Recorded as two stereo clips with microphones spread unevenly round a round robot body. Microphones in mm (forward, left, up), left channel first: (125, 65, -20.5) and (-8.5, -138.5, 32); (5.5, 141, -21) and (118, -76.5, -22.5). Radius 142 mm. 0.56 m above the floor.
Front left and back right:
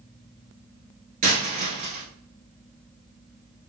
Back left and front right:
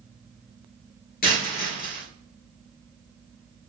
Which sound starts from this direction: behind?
A dropped coin, at 1.2 s.